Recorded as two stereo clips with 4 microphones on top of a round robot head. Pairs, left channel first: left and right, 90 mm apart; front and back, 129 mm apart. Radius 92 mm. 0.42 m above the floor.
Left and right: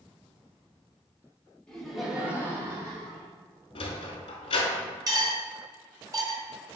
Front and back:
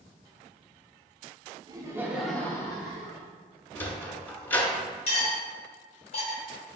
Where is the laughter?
165° left, 0.9 m; by 3.3 s 40° right, 1.4 m.